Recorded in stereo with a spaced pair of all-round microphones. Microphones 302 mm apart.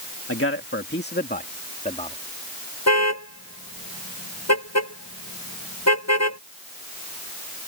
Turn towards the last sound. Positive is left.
turn(degrees=60)  # may be behind; listen again after turning